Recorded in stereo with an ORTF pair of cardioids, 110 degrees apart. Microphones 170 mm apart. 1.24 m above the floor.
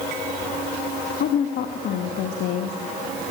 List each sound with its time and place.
1.2 s a woman speaking: 65° left, 1.7 m